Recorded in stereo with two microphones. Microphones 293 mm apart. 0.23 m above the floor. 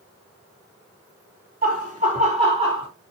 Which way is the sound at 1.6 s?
30° right (ahead or behind).